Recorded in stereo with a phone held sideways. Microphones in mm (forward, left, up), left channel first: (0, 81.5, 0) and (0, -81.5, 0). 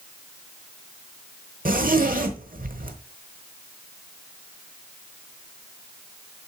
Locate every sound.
1.6 s a zipper: 60° right (ahead or behind), 1.0 m